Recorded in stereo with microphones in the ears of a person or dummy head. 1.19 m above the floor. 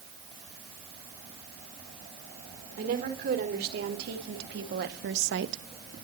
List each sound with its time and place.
2.8 s a woman speaking: 60° right (ahead or behind), 4 m; by 5.6 s 75° right (ahead or behind), 1.1 m